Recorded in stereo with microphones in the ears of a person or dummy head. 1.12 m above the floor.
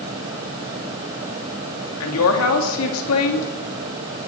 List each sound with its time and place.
2.0 s a woman speaking: 75° left (ahead or behind), 2.5 m